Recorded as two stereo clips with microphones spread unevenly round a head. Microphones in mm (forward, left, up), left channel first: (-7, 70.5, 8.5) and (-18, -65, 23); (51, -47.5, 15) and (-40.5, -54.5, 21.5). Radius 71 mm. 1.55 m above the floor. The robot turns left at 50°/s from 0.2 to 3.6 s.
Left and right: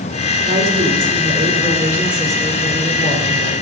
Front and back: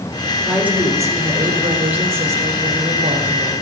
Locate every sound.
0.4 s a woman speaking: 90° right, 4 m; by 3.5 s 115° left, 4 m